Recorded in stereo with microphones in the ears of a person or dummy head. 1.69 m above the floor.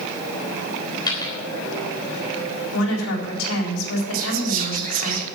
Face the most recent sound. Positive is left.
turn(degrees=-40)  # may be behind; listen again after turning